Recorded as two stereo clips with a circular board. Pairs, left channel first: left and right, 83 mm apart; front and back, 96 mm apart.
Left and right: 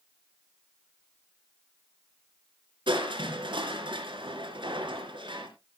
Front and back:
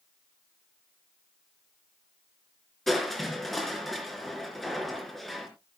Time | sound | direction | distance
2.9 | crushing | 90° right | 3.5 m